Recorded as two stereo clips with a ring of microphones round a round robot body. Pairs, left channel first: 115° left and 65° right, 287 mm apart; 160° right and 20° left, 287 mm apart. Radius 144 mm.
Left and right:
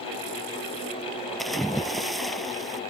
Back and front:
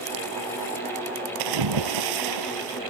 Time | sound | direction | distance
1.4 | a splash | 25° left | ?